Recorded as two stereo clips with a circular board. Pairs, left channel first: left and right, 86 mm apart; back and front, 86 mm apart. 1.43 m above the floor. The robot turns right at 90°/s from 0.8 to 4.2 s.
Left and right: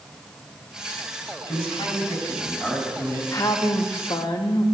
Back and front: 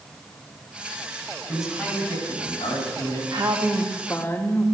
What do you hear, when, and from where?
1.5 s a man speaking: 70° left, 4.5 m; by 3.2 s 130° right, 4.5 m
3.3 s a woman speaking: 40° left, 1.0 m; by 4.7 s 120° left, 1.0 m